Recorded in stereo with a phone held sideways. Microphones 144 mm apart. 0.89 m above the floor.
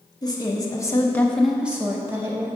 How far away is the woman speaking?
About 0.9 m.